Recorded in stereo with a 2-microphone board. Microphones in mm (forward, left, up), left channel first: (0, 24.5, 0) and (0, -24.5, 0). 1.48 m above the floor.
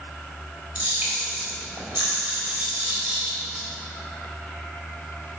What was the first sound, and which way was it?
A camera shutter, 25° right (ahead or behind).